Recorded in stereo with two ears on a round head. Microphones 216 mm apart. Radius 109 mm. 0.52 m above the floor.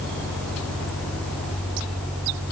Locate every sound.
Only background noise.